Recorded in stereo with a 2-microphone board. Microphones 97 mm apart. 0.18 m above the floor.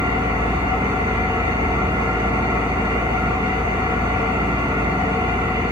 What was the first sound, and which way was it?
An engine running, 40° right (ahead or behind).